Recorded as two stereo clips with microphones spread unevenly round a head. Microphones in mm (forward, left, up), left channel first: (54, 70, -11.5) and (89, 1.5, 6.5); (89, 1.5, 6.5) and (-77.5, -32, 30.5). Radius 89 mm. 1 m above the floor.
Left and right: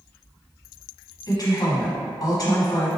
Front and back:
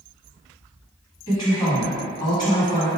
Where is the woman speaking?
80° left, 1.4 m.